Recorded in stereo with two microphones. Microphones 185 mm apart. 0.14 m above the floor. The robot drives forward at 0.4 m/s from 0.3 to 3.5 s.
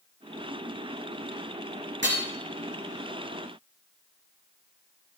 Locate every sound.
2.0 s hammering: 80° right, 4.5 m